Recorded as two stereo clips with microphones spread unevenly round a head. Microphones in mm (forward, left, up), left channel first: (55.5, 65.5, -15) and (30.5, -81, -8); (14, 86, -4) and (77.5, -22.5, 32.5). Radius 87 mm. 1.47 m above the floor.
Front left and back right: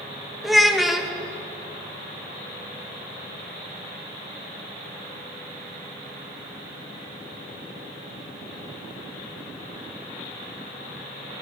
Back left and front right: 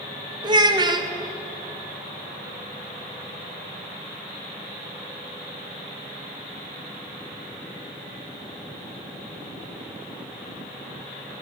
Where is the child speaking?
10° right, 1.2 m.